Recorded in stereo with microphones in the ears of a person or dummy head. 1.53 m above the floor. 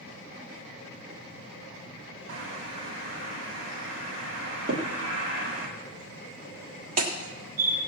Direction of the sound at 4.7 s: 50° right (ahead or behind).